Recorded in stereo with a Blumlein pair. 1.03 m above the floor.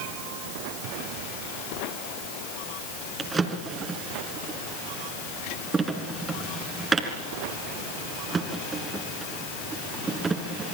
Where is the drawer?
15° right, 3 m.